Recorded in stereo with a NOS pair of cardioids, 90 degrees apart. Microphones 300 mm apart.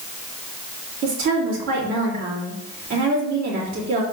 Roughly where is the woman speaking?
Ahead right.